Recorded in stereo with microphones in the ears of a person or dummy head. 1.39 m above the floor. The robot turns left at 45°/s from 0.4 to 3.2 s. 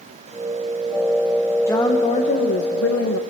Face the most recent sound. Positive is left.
turn(degrees=95)